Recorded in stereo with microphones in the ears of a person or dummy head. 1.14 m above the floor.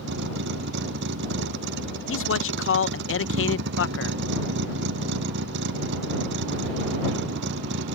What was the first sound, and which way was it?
A vehicle, 65° right (ahead or behind).